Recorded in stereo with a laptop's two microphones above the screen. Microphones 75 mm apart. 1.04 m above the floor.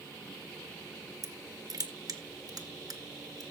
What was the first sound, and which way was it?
Crushing, 55° right (ahead or behind).